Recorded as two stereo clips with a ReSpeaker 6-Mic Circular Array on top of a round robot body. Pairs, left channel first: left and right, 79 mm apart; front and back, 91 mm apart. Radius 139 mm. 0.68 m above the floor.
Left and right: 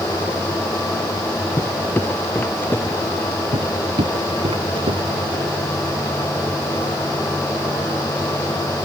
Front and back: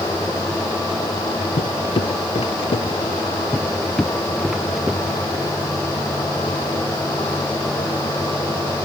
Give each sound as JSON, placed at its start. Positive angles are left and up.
{"t": 1.6, "sound": "footsteps", "azimuth_deg": 25}
{"t": 3.5, "sound": "footsteps", "azimuth_deg": -80}